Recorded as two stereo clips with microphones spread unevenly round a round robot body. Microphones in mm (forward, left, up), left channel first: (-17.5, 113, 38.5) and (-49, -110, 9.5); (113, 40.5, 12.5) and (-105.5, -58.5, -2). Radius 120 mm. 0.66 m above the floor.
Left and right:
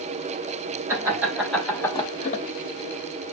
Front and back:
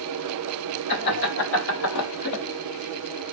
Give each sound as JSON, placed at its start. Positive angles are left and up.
{"t": 0.9, "sound": "laughter", "azimuth_deg": -20, "distance_m": 3.0}